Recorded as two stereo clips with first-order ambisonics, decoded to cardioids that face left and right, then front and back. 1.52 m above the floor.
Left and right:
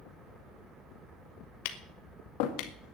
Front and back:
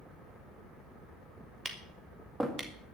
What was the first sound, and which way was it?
Tapping, 95° left.